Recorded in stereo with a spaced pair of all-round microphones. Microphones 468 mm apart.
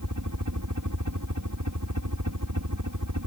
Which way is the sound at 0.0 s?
40° right (ahead or behind).